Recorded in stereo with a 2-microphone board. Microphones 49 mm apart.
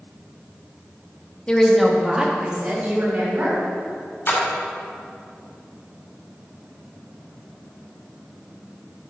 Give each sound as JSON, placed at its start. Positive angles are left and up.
{"t": 1.5, "sound": "a woman speaking", "side_deg": 20, "distance_m": 1.3}
{"t": 4.3, "sound": "a splash", "side_deg": 45, "distance_m": 2.5}